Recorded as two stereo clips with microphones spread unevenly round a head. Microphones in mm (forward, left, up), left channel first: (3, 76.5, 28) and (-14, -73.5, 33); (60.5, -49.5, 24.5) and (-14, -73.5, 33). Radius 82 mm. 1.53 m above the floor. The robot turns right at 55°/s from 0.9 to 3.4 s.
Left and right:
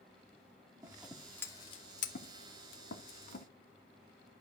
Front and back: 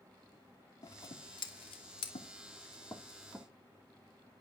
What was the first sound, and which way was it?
Scissors, 20° right.